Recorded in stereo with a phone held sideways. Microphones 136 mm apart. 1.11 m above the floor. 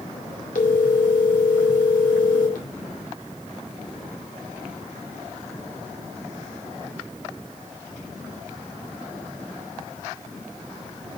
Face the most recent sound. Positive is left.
turn(degrees=85)